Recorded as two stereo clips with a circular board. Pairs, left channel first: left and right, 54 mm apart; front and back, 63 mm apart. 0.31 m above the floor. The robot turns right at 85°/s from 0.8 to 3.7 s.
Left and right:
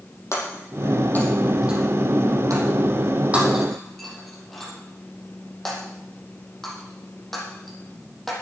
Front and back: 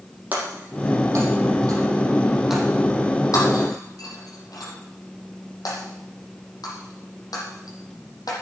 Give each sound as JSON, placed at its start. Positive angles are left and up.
{"t": 0.3, "sound": "breaking glass", "azimuth_deg": 120, "distance_m": 6.5}